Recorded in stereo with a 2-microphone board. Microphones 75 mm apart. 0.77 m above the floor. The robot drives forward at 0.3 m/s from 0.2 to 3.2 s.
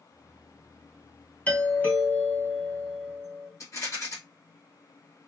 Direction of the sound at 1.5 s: 20° left (ahead or behind).